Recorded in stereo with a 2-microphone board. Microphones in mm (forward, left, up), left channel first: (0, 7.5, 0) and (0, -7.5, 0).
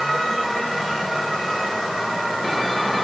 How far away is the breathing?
I don't hear breathing.